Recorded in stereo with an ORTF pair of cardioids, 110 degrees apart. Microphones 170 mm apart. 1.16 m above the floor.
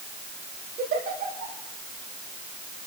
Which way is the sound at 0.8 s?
65° right.